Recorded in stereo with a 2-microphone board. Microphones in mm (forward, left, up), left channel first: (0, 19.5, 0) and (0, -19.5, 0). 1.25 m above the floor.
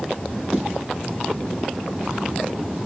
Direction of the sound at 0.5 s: 5° right (ahead or behind).